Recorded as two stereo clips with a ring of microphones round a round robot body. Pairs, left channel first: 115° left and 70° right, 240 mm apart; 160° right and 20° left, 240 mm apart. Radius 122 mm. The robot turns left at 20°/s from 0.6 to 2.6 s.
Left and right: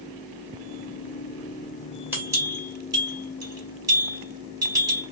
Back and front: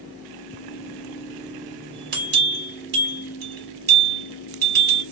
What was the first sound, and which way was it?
A bell, 10° left.